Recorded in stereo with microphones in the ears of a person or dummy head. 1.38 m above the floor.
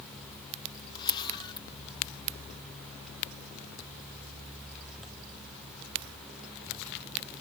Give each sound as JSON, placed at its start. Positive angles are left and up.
{"t": 0.9, "sound": "a camera shutter", "side_deg": 25, "distance_m": 1.4}